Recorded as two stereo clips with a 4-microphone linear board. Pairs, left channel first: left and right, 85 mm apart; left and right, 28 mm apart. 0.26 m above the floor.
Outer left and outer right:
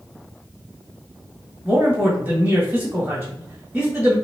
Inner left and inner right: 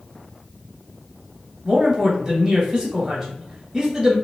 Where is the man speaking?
15° right (ahead or behind), 1.6 m.